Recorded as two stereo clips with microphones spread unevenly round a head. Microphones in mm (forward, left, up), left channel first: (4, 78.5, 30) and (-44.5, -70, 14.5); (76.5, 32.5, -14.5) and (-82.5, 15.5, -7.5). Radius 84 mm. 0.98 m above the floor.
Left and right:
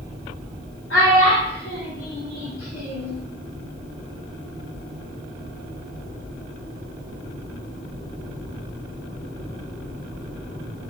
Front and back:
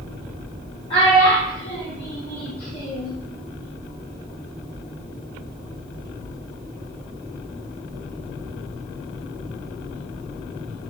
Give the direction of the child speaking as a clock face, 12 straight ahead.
10 o'clock.